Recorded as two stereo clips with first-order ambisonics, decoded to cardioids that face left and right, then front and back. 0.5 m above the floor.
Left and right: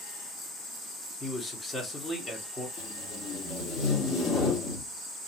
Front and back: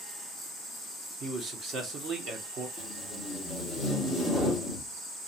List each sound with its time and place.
1.2 s a man speaking: 165° left, 0.9 m
2.8 s tape being pulled: 90° left, 1.3 m